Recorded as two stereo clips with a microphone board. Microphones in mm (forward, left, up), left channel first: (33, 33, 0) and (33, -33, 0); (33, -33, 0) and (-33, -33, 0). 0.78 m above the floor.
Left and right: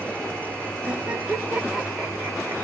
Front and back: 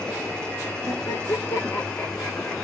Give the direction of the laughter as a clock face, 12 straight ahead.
1 o'clock.